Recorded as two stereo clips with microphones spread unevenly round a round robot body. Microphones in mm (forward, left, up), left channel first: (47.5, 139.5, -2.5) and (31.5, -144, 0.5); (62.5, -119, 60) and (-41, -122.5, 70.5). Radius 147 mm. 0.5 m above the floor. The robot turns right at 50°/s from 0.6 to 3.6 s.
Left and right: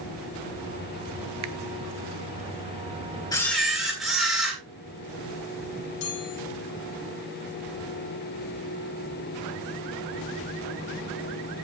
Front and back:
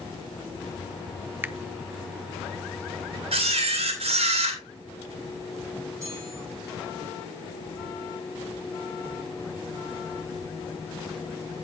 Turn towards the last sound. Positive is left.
turn(degrees=110)